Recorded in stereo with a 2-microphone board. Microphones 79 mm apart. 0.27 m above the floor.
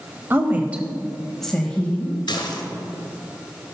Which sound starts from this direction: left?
Dishes clattering, at 2.3 s.